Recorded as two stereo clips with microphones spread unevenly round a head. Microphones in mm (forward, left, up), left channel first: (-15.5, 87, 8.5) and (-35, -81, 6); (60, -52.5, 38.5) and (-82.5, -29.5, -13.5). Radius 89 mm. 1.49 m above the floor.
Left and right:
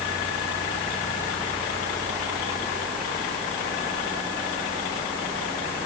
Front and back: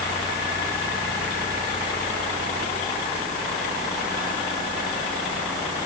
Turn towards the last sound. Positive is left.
No sound to turn to.